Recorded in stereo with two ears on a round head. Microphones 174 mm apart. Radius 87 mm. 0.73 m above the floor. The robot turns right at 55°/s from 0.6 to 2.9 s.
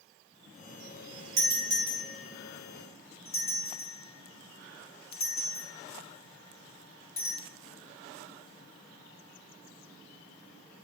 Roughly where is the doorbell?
Right.